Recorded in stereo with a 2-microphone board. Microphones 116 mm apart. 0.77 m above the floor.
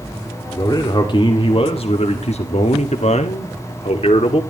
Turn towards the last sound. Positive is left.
turn(degrees=55)  # may be behind; listen again after turning